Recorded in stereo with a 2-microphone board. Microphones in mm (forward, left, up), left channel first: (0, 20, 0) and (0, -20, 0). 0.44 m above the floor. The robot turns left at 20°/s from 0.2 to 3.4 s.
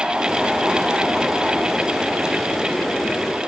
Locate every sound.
Only background noise.